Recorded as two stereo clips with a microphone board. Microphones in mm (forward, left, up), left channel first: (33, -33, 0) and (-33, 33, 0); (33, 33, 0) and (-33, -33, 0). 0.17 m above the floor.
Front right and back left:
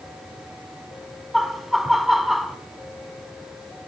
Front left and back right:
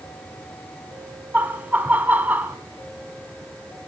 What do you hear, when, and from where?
1.3 s laughter: 140° right, 1.0 m